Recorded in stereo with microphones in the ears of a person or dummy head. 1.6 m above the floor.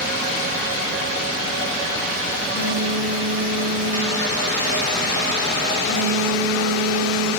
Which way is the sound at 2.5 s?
40° left (ahead or behind).